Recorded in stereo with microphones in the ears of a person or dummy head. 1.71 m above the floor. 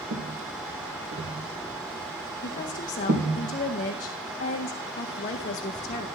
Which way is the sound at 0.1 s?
45° right (ahead or behind).